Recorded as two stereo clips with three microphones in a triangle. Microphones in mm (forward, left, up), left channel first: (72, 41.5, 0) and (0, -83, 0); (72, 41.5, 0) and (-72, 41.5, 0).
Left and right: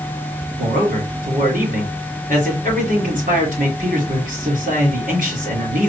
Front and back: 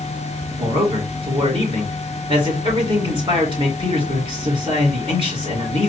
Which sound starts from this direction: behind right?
A man speaking, at 0.6 s.